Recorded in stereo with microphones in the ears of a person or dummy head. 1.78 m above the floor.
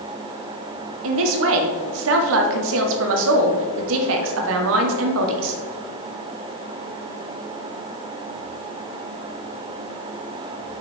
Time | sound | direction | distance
1.0 | a man speaking | 70° right (ahead or behind) | 1.3 m